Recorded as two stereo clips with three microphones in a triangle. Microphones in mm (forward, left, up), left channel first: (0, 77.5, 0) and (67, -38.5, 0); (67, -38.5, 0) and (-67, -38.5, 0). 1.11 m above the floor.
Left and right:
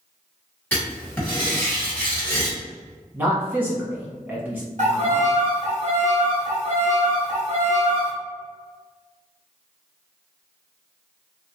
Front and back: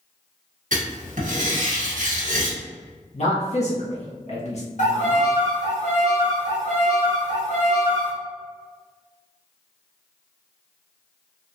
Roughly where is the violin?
Ahead right.